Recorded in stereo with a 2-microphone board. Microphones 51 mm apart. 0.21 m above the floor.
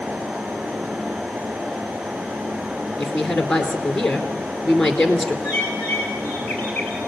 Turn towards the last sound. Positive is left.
turn(degrees=20)  # may be behind; listen again after turning